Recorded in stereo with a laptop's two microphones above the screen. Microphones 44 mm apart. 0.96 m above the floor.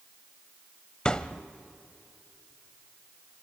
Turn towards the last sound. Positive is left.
turn(degrees=20)  # may be behind; listen again after turning